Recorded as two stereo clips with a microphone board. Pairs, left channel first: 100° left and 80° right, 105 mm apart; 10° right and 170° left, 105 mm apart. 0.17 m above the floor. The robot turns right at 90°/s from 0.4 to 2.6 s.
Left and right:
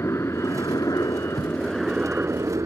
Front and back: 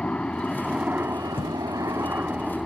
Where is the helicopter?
60° left; by 2.7 s 100° right.